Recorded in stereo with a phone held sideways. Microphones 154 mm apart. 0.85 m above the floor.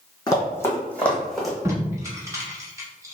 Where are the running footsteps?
25° left (ahead or behind), 1.5 m; by 1.6 s centre (ahead or behind), 1.7 m.